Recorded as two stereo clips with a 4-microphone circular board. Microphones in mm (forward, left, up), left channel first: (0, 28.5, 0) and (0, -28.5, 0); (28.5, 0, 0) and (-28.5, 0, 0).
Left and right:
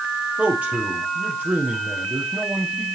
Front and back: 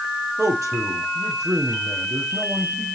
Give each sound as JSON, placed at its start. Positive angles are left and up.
{"t": 0.4, "sound": "a man speaking", "azimuth_deg": -155, "distance_m": 4.5}